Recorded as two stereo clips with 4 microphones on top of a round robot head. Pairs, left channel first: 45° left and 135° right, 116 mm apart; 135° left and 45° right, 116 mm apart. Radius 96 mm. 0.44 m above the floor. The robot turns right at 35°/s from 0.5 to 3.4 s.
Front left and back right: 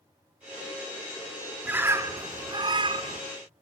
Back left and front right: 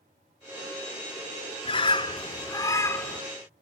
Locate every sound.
1.6 s a bird: 155° left, 1.5 m; by 3.2 s 155° right, 1.5 m